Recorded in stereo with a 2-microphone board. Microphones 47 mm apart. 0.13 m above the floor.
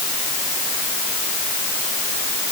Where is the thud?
I don't hear a thud.